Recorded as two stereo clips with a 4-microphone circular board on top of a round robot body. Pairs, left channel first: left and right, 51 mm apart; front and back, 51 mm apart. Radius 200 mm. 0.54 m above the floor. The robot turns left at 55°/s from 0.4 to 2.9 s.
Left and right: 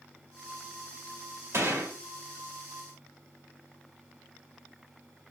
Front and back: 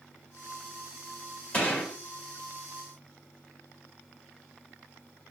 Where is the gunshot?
60° right, 2.5 m; by 1.9 s 80° right, 2.5 m.